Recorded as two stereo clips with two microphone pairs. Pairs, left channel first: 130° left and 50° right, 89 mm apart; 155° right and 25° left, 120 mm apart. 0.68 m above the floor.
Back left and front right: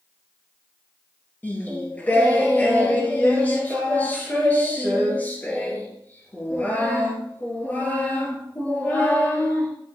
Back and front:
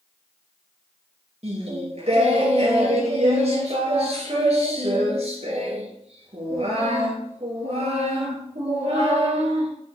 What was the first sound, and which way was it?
Singing, 60° left.